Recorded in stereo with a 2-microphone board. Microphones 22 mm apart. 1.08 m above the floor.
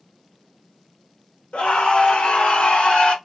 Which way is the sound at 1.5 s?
85° left.